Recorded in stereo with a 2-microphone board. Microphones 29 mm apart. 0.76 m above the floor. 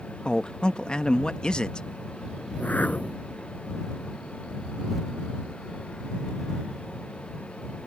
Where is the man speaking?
30° left (ahead or behind).